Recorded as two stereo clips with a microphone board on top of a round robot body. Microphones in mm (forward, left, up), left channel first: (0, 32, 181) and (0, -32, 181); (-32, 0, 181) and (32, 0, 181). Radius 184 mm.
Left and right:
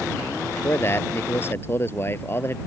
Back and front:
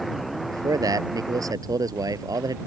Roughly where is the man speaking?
Ahead left.